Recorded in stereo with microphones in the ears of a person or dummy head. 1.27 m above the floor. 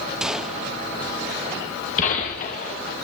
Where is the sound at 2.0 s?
40° left (ahead or behind), 2 m.